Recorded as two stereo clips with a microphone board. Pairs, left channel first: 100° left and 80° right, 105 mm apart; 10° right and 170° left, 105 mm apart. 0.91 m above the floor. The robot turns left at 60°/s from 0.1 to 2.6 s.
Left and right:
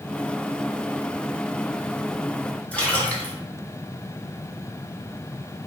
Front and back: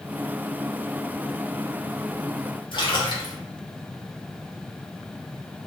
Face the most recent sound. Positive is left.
turn(degrees=25)